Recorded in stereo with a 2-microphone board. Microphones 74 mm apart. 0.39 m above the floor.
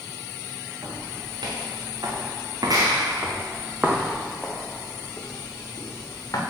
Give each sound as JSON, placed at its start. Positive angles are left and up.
{"t": 0.8, "sound": "footsteps", "side_deg": -80, "distance_m": 3.0}